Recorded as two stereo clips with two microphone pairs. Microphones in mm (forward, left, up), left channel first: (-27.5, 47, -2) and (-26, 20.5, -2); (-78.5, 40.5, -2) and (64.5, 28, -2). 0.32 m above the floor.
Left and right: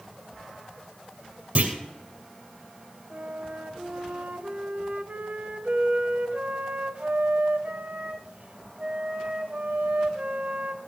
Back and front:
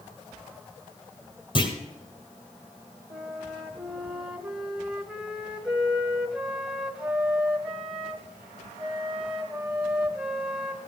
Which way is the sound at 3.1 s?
90° right.